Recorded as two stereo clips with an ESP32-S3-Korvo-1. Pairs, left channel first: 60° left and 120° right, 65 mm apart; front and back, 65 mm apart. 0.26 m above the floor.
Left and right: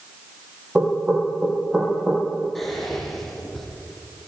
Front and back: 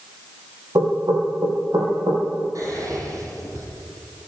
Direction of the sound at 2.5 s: 145° left.